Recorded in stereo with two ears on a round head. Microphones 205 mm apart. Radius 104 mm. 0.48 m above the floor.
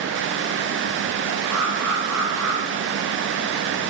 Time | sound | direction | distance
1.5 | an alarm | 75° right (ahead or behind) | 6.5 m